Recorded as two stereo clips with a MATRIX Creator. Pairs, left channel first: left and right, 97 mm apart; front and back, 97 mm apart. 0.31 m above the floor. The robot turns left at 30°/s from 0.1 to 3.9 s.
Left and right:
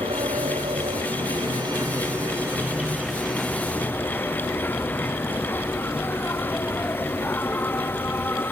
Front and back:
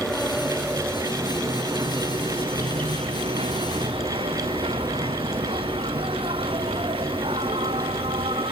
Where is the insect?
85° right; by 8.5 s 160° left.